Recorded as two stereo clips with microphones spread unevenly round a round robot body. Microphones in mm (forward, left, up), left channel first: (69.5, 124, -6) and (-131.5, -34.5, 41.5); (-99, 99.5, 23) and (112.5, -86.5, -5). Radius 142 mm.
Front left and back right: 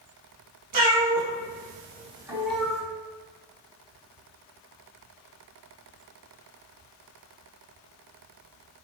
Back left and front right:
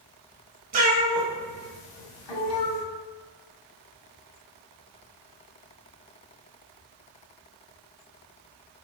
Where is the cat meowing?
100° right, 1.2 m; by 2.8 s 120° left, 1.4 m.